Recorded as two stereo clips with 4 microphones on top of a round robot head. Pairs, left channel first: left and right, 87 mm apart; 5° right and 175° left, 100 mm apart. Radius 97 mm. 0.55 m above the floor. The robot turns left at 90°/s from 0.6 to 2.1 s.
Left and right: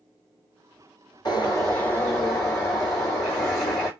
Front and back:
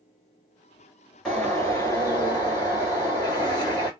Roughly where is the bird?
Left.